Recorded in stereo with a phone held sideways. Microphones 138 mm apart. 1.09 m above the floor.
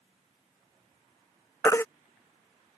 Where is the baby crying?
20° left (ahead or behind).